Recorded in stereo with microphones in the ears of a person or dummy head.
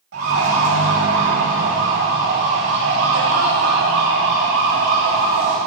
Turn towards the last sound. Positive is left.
turn(degrees=-55)  # may be behind; listen again after turning